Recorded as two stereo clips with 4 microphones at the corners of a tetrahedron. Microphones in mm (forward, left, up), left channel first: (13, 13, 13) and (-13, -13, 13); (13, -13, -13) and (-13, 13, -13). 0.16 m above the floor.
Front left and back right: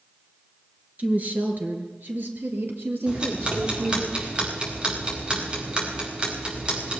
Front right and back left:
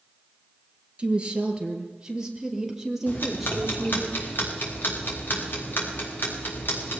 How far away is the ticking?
About 5 m.